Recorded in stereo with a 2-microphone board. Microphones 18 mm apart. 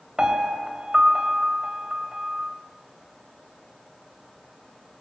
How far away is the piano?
About 2.5 m.